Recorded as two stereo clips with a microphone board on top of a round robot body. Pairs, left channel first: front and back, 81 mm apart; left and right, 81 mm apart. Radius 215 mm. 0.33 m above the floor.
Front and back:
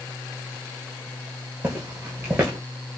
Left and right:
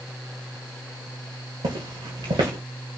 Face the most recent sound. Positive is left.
turn(degrees=-110)